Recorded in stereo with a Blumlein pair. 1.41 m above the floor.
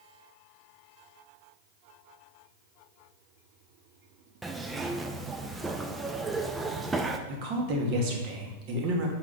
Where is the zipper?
10° right, 0.6 m.